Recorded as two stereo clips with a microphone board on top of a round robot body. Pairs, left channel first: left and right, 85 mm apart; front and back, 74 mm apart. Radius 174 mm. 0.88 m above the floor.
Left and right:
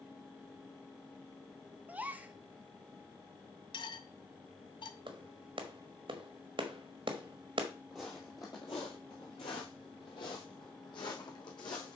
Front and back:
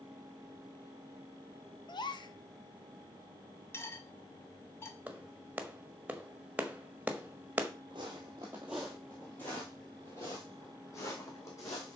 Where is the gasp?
15° right, 0.9 m.